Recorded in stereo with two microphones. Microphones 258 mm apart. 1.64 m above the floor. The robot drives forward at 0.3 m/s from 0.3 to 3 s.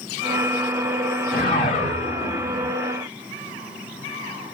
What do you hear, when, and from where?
1.3 s a whoosh: 35° left (ahead or behind), 2.5 m; by 2.7 s 30° left (ahead or behind), 3 m